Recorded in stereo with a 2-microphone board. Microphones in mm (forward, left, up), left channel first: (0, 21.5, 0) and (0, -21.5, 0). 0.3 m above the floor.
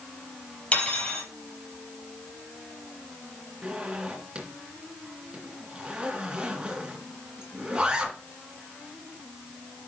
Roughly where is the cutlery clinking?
Left.